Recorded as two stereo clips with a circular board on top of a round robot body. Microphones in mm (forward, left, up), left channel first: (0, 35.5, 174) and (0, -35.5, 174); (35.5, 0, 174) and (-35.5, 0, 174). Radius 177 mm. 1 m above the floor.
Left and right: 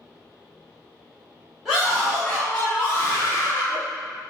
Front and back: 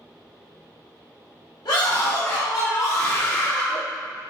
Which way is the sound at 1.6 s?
5° right.